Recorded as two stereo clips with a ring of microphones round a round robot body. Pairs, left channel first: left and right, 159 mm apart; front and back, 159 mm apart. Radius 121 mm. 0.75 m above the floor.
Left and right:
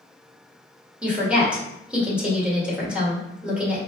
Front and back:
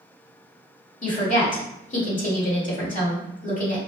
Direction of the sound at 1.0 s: 10° right.